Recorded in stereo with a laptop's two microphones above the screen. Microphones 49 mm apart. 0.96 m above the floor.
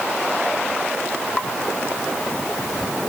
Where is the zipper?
I don't hear a zipper.